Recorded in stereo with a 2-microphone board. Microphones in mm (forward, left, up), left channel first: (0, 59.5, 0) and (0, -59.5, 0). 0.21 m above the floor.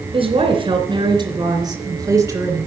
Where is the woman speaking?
50° right (ahead or behind), 2.5 m; by 2.7 s 20° right (ahead or behind), 2.5 m.